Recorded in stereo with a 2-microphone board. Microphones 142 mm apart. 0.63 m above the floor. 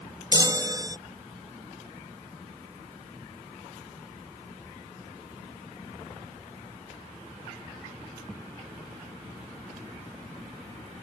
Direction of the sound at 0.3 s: 25° right (ahead or behind).